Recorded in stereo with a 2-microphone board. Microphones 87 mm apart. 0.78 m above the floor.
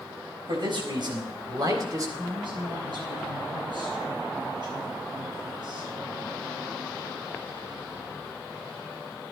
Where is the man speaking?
65° right (ahead or behind), 4 m; by 2.1 s 40° right (ahead or behind), 2.5 m.